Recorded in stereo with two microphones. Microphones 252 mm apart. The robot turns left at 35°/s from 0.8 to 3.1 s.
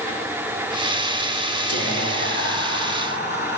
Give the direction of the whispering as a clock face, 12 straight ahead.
9 o'clock.